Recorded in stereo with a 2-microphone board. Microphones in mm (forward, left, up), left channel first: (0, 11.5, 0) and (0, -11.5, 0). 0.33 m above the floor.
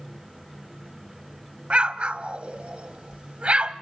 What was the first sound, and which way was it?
An explosion, 65° right (ahead or behind).